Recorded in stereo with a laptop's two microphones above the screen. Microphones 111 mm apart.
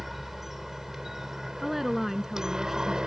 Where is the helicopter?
Centre (ahead or behind); by 3.1 s 5° right (ahead or behind).